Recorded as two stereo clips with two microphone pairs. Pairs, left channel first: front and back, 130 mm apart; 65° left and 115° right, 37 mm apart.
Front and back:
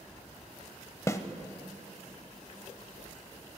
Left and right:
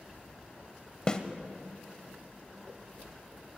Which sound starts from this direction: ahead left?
A snare drum, at 1.1 s.